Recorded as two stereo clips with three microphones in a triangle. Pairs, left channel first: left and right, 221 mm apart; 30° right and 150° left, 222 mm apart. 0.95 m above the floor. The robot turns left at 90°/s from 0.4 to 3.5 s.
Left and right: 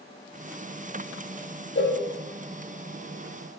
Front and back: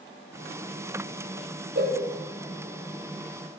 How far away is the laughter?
I don't hear laughter.